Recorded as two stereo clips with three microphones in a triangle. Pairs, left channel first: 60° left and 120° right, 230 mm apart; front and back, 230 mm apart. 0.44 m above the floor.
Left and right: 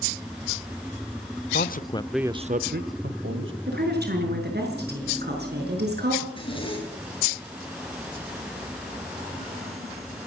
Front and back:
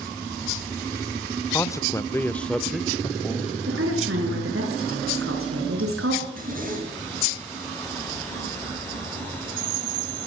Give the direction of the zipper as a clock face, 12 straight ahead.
8 o'clock.